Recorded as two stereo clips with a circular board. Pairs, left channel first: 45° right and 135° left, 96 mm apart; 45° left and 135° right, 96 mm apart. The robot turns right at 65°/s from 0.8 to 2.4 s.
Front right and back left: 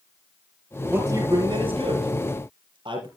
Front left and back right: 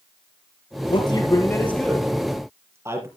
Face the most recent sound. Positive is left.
turn(degrees=165)